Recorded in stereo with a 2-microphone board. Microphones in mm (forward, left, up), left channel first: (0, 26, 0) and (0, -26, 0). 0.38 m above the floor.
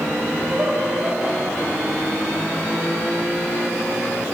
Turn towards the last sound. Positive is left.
turn(degrees=-35)  # may be behind; listen again after turning